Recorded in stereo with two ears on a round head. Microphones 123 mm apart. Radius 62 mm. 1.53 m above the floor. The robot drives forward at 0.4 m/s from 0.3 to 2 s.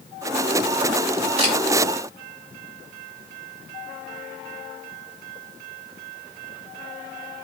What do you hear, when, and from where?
1.4 s a camera shutter: 45° right (ahead or behind), 3 m